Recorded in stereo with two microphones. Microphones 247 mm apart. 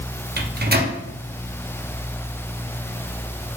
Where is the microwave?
40° right (ahead or behind), 0.6 m.